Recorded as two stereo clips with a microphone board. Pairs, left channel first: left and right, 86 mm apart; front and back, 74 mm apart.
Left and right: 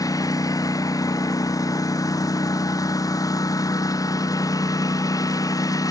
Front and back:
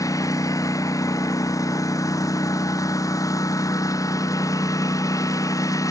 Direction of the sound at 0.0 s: 40° left.